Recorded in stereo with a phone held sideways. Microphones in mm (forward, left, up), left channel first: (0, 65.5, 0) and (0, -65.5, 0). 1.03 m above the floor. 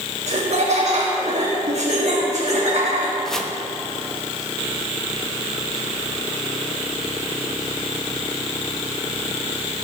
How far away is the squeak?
No squeak in this recording.